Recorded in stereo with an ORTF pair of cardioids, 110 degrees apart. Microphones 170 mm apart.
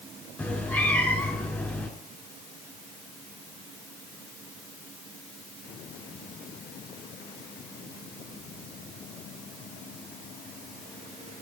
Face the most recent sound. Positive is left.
turn(degrees=15)